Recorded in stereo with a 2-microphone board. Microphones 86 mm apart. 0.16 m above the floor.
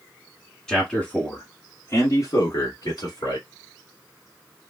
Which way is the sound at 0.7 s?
5° left (ahead or behind).